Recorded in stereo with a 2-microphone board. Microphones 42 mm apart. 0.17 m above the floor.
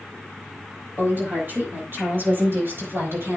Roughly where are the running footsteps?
No running footsteps in this recording.